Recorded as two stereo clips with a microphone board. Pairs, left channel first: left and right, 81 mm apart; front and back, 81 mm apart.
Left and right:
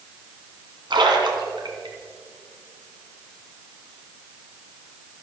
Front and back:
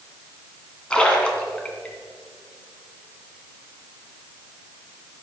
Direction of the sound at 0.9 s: 75° right.